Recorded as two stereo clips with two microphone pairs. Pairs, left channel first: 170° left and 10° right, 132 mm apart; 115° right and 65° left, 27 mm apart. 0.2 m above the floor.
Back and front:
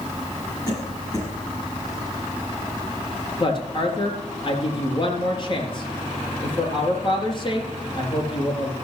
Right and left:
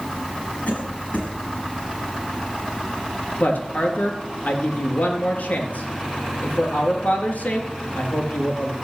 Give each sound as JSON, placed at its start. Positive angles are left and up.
{"t": 0.7, "sound": "a cough", "azimuth_deg": -130, "distance_m": 7.0}
{"t": 3.4, "sound": "a woman speaking", "azimuth_deg": -140, "distance_m": 4.0}